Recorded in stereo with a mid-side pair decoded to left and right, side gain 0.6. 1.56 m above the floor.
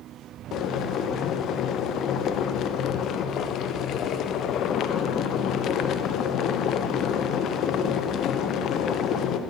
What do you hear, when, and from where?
0.5 s boiling: 55° left, 0.9 m